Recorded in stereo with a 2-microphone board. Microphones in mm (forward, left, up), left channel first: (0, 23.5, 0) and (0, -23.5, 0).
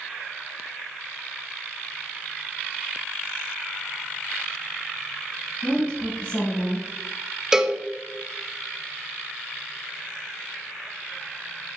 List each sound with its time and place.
5.6 s a woman speaking: 45° left (ahead or behind), 2.5 m
7.5 s a cowbell: 15° right (ahead or behind), 0.6 m